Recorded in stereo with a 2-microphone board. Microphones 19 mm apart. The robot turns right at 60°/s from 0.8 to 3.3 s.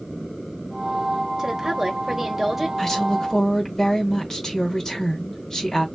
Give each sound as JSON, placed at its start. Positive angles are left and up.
{"t": 1.4, "sound": "a woman speaking", "azimuth_deg": -90, "distance_m": 1.0}
{"t": 2.8, "sound": "a woman speaking", "side_deg": 15, "distance_m": 1.2}